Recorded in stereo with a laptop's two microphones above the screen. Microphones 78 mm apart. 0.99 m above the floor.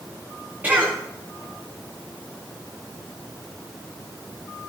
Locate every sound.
0.6 s a cough: 20° right (ahead or behind), 2 m